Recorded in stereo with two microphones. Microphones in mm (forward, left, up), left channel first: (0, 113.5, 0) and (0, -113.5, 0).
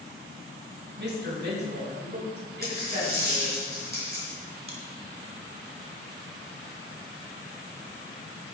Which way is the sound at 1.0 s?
50° right (ahead or behind).